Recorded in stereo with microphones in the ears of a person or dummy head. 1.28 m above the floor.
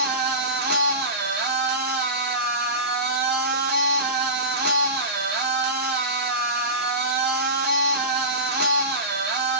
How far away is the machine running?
About 0.7 m.